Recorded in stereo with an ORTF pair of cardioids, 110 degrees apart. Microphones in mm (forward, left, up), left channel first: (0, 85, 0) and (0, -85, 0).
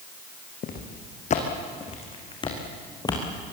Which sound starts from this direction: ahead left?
Footsteps, at 0.6 s.